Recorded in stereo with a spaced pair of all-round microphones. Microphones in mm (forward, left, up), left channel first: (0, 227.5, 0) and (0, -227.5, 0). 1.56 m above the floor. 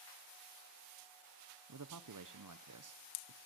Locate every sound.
1.7 s a man speaking: 45° right (ahead or behind), 0.7 m